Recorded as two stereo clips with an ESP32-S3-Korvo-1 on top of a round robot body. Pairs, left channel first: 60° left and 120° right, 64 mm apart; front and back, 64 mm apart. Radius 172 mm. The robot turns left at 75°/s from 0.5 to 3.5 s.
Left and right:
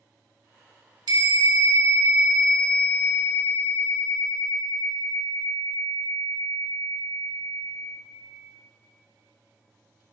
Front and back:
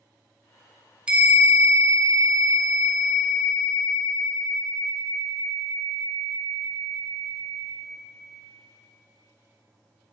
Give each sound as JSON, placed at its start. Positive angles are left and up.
{"t": 1.1, "sound": "a bell", "azimuth_deg": -105, "distance_m": 0.9}